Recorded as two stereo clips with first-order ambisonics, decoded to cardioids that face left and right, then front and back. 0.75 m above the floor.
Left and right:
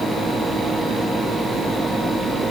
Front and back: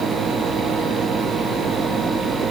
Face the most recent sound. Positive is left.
No sound to turn to.